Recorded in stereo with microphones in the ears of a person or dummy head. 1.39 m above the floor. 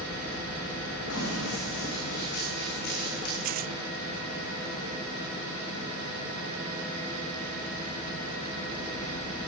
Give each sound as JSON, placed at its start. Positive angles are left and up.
{"t": 1.1, "sound": "running footsteps", "side_deg": 70, "distance_m": 5.5}
{"t": 3.4, "sound": "tearing paper", "side_deg": -45, "distance_m": 1.2}